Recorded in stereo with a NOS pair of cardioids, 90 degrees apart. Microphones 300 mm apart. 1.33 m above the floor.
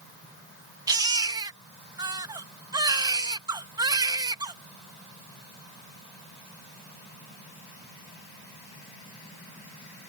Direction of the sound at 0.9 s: 10° right.